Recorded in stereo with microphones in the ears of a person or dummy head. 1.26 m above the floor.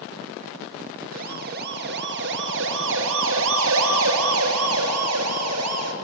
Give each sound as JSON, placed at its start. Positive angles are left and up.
{"t": 1.1, "sound": "a siren", "side_deg": -45, "distance_m": 2.5}